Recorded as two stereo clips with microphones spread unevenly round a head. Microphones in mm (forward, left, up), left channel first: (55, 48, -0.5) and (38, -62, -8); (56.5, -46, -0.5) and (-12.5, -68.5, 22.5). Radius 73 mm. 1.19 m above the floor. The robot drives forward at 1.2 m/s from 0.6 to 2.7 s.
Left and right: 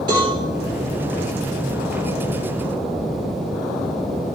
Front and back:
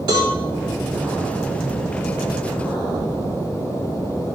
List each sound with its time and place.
0.1 s a cowbell: 160° right, 3.5 m